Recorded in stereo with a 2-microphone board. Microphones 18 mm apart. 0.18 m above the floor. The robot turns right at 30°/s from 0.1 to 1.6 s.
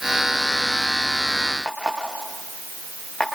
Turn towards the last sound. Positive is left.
turn(degrees=65)  # may be behind; listen again after turning